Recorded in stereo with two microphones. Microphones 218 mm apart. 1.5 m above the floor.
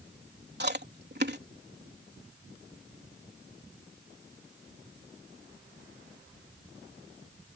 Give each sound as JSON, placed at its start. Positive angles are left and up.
{"t": 0.6, "sound": "chewing", "side_deg": -50}